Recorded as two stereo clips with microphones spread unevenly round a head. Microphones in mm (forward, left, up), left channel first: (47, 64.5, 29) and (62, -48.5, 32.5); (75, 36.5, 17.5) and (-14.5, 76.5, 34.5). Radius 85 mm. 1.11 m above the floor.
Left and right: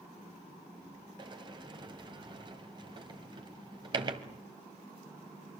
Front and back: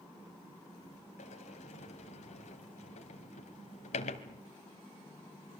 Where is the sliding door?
35° right, 2 m.